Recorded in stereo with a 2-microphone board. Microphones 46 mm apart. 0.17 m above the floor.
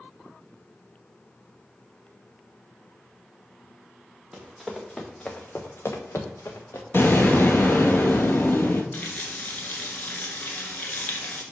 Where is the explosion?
55° left (ahead or behind), 1.0 m.